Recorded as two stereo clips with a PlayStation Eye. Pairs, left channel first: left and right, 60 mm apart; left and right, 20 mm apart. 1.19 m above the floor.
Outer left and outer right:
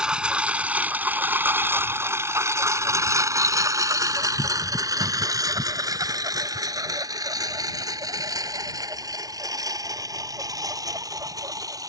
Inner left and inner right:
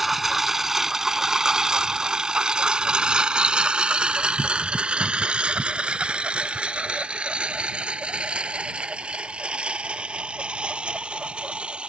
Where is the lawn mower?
10° right (ahead or behind); by 11.9 s 75° right (ahead or behind).